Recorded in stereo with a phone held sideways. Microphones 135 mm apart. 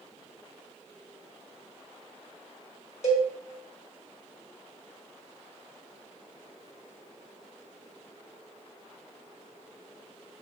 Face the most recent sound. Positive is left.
turn(degrees=60)  # may be behind; listen again after turning